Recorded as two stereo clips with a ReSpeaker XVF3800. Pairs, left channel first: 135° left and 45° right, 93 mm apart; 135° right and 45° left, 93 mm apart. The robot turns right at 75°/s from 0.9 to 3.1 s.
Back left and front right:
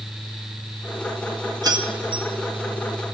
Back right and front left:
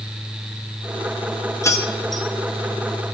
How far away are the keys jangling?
About 0.8 m.